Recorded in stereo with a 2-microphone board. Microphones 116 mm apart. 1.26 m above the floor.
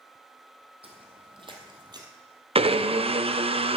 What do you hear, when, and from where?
0.8 s footsteps: 55° right (ahead or behind), 2 m; by 2.1 s 35° right (ahead or behind), 1.5 m
2.5 s a blender: 55° right (ahead or behind), 0.5 m